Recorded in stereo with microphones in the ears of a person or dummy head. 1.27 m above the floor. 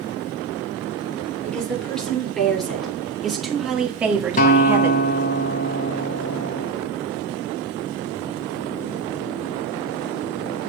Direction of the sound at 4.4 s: 30° left (ahead or behind).